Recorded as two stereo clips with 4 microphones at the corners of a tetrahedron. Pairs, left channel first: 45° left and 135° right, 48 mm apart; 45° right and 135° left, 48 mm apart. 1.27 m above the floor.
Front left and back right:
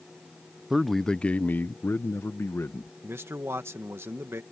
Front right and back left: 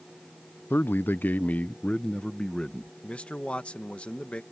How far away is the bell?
No bell in this recording.